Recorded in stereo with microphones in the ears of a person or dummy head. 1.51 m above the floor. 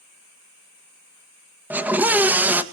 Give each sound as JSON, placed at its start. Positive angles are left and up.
{"t": 1.7, "sound": "a scream", "side_deg": -10, "distance_m": 1.9}